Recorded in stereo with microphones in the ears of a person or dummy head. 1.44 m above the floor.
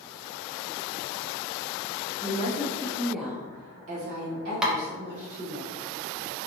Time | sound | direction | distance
2.2 | a woman speaking | 35° left (ahead or behind) | 0.9 m
4.6 | tapping | 5° right (ahead or behind) | 0.5 m